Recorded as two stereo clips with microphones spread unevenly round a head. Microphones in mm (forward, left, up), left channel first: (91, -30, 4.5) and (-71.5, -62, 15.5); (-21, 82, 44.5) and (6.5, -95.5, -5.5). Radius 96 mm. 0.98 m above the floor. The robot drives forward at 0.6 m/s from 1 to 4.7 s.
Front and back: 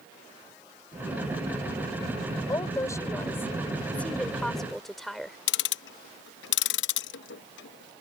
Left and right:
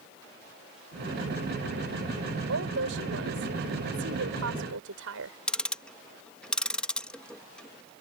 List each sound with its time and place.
2.5 s a woman speaking: 60° right; by 5.4 s 80° right
5.5 s ticking: 10° left